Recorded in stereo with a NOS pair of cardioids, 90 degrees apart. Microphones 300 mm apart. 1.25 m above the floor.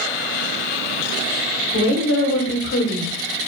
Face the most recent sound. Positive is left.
turn(degrees=50)